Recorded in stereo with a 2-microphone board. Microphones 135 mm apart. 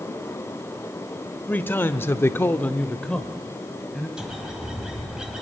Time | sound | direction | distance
1.5 | a man speaking | 15° left (ahead or behind) | 1.4 m
4.2 | a bird | 5° right (ahead or behind) | 3 m